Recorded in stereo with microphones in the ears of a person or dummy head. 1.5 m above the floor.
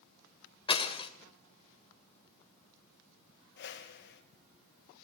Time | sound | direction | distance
0.7 | breaking glass | 20° left (ahead or behind) | 2 m
3.6 | a whoosh | 50° left (ahead or behind) | 2 m